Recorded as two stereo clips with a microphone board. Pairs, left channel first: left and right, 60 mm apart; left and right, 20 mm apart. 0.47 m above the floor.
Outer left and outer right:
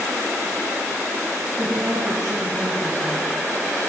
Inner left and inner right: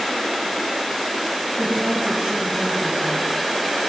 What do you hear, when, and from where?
1.6 s a woman speaking: 75° right (ahead or behind), 4 m